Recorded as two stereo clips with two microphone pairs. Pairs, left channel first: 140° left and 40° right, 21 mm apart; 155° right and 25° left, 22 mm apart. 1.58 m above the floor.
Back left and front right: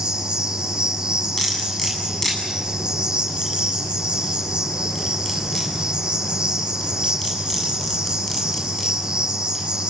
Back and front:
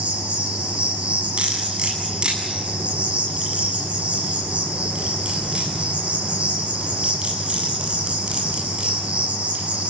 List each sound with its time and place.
0.0 s an insect: 10° left, 7 m
1.4 s cutlery clinking: 70° left, 8.5 m